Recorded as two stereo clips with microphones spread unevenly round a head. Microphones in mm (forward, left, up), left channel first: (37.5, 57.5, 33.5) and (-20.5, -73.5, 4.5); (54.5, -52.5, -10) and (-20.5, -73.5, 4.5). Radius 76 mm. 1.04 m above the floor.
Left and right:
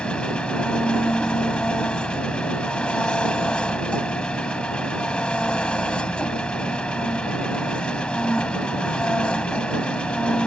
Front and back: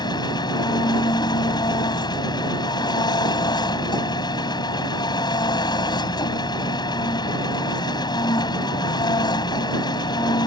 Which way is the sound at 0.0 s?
15° right.